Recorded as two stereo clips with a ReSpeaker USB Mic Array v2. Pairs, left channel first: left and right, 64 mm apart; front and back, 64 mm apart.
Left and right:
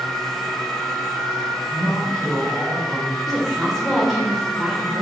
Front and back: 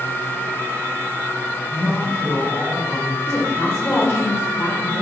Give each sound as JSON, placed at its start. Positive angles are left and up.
{"t": 1.7, "sound": "a man speaking", "azimuth_deg": -15, "distance_m": 1.7}
{"t": 3.3, "sound": "a woman speaking", "azimuth_deg": 0, "distance_m": 1.1}